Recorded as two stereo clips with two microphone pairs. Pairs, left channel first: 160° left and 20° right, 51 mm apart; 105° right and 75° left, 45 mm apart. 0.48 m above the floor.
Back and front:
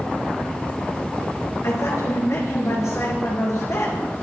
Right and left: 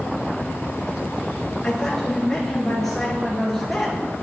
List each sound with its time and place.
1.6 s a woman speaking: 170° left, 10 m; by 4.0 s 165° left, 10 m